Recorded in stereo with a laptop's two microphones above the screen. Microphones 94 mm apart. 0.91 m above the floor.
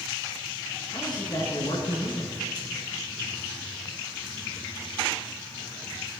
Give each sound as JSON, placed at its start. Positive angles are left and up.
{"t": 0.9, "sound": "a man speaking", "side_deg": 55, "distance_m": 9.0}